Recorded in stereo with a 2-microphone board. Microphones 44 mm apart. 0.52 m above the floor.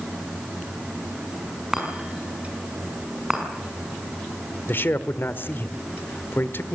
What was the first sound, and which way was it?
A chime, 10° right (ahead or behind).